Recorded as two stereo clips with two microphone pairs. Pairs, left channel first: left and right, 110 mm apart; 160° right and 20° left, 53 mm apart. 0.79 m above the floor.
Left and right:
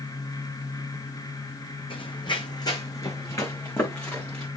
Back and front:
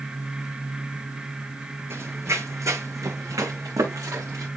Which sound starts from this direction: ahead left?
Running footsteps, at 1.9 s.